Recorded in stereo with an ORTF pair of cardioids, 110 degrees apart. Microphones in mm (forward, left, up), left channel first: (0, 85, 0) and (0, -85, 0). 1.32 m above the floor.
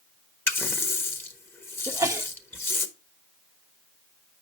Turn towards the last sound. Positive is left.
turn(degrees=-15)